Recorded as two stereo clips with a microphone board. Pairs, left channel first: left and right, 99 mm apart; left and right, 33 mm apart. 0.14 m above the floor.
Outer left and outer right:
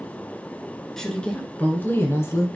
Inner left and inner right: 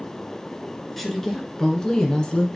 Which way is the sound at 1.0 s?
5° left (ahead or behind).